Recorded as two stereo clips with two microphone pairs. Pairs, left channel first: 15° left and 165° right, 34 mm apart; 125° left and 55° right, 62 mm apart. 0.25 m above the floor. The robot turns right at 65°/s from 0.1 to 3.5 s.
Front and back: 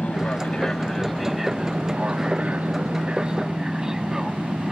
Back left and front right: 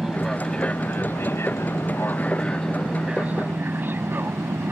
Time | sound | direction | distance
0.0 | an aircraft | 30° left | ?